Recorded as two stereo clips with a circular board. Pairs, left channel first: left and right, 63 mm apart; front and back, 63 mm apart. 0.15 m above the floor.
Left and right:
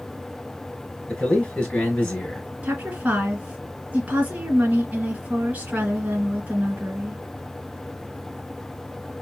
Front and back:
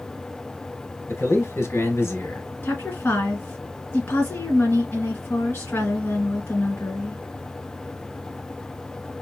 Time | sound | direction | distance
1.1 | a man speaking | 20° left | 2.5 m
2.6 | a woman speaking | 40° right | 2 m